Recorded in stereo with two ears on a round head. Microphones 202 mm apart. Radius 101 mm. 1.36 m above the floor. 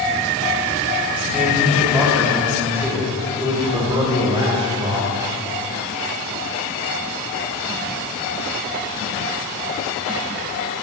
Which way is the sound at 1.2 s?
5° right (ahead or behind).